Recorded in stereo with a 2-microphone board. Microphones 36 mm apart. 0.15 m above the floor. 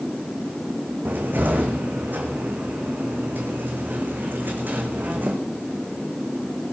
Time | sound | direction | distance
1.1 | a cupboard door | 55° right (ahead or behind) | 3.5 m